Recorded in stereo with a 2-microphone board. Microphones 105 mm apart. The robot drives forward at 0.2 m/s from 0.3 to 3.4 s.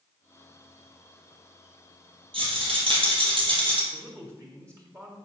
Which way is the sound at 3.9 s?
30° right (ahead or behind).